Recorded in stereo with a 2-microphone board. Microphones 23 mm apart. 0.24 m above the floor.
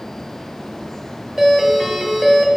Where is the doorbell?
15° right (ahead or behind), 1.6 m.